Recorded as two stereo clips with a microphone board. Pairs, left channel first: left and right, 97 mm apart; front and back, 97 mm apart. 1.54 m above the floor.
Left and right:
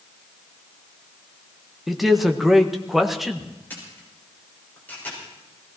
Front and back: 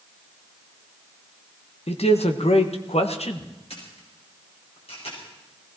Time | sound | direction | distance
1.9 | a man speaking | straight ahead | 1.5 m
3.7 | a camera shutter | 15° left | 5.5 m